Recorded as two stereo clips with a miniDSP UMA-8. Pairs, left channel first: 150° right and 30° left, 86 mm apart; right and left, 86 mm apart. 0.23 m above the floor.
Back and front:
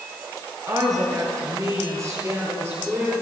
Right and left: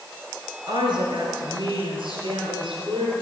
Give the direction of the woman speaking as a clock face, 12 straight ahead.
10 o'clock.